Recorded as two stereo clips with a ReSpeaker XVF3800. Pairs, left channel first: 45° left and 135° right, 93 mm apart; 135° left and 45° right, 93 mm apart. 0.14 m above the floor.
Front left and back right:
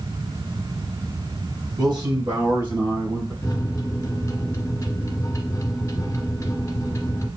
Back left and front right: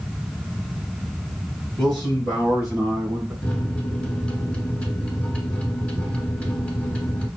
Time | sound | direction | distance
1.8 | a man speaking | 140° right | 2.5 m
3.4 | a microwave | 65° left | 1.0 m